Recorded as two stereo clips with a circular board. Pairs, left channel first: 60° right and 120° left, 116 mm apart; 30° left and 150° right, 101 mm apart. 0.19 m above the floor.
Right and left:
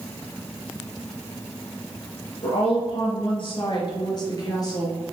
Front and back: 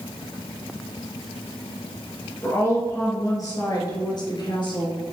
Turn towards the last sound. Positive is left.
turn(degrees=0)